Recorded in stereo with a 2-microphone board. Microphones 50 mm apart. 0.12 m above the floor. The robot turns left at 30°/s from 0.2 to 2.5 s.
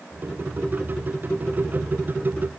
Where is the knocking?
I don't hear knocking.